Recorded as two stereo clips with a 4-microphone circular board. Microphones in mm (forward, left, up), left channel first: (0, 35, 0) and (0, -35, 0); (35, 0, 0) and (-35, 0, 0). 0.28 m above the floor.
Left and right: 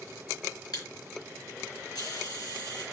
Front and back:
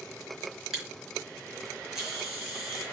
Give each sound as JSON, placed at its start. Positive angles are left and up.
{"t": 0.7, "sound": "a camera shutter", "azimuth_deg": 100, "distance_m": 5.5}